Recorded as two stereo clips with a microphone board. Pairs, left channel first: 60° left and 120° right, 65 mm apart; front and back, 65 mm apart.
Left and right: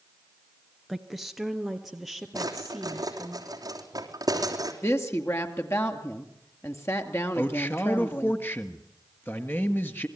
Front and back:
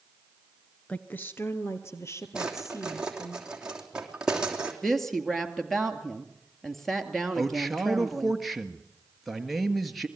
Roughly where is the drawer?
Right.